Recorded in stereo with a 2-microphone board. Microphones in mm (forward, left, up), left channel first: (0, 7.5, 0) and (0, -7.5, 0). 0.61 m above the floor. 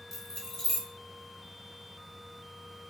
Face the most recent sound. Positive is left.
turn(degrees=20)  # may be behind; listen again after turning